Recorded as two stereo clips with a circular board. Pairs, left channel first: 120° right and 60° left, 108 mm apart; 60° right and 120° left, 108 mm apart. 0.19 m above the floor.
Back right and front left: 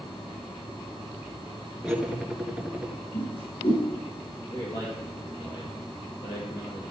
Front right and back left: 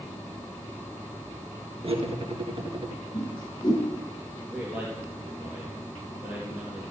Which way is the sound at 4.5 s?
165° right.